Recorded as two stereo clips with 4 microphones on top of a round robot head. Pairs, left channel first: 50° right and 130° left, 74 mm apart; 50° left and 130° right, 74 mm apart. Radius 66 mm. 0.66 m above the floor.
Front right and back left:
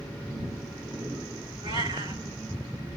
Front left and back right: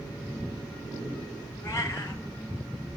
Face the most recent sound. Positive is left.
turn(degrees=105)